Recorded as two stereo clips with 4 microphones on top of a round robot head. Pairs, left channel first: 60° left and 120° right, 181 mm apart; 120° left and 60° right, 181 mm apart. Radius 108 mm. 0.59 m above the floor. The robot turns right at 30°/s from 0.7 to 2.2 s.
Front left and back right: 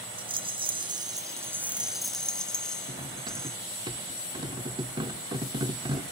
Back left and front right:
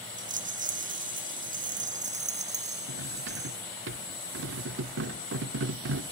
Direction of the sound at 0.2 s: 75° right.